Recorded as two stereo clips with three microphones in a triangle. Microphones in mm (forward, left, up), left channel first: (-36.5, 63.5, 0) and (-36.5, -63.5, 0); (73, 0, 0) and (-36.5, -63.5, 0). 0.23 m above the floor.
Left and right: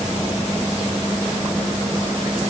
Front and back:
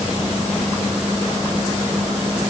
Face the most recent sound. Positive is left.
No sound to turn to.